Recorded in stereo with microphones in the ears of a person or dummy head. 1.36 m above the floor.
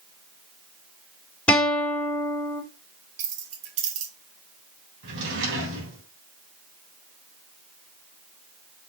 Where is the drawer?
70° right (ahead or behind), 3 m.